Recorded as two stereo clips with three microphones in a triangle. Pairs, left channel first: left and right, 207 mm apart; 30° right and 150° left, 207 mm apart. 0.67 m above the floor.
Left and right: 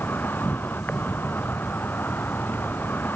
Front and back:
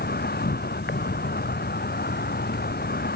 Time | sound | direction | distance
0.0 | an insect | 10° left | ?